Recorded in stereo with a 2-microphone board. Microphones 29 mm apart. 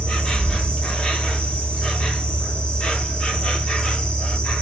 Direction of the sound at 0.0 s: 30° left (ahead or behind).